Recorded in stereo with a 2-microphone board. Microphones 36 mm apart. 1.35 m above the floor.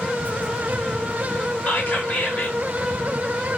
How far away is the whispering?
About 2.5 m.